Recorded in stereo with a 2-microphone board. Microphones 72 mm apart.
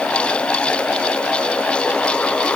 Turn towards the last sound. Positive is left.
No sound to turn to.